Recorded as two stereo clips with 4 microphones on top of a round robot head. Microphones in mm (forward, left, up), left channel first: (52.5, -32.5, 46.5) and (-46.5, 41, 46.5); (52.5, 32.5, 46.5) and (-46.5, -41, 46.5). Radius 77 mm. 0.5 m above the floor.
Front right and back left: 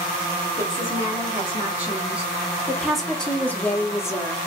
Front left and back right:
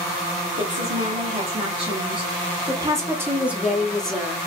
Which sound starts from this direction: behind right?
A woman speaking, at 0.6 s.